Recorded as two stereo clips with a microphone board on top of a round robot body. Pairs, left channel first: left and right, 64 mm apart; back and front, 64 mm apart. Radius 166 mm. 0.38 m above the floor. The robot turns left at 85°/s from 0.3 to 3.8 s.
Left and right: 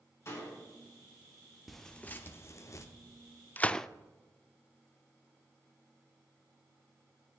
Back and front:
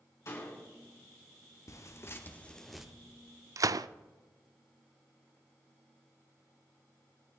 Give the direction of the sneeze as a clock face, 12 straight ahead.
No sneeze in this recording.